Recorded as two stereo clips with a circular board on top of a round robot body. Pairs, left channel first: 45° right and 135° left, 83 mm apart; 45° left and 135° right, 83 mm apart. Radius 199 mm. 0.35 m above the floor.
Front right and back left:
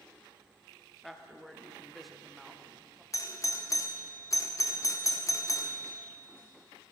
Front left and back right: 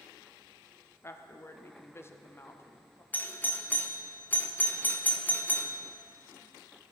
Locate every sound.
1.0 s a woman speaking: 45° left, 1.5 m
3.1 s a doorbell: 15° right, 1.7 m